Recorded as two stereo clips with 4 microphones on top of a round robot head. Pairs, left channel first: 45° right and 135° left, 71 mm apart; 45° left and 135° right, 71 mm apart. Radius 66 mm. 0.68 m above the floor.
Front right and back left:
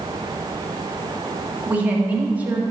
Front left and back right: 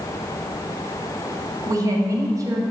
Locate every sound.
1.7 s a woman speaking: 160° right, 1.8 m